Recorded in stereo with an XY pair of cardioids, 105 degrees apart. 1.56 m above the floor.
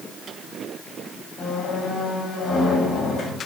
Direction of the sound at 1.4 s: 70° left.